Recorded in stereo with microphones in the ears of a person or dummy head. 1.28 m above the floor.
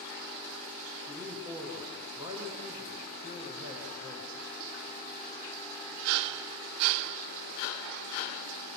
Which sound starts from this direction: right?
A man speaking, at 1.1 s.